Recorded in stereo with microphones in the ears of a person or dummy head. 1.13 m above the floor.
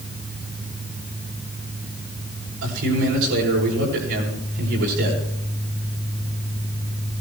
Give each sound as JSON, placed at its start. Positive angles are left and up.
{"t": 2.6, "sound": "a man speaking", "side_deg": -75, "distance_m": 7.0}